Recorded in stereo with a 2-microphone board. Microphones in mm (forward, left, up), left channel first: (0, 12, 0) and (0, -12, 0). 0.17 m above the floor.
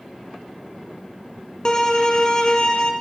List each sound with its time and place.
1.6 s a violin: 30° left (ahead or behind), 0.8 m